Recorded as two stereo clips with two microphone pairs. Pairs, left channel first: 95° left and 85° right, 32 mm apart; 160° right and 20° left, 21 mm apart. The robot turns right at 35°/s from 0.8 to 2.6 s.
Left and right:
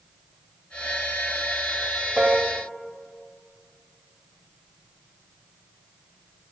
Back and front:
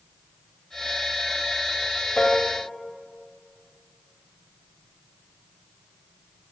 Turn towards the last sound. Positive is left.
turn(degrees=-120)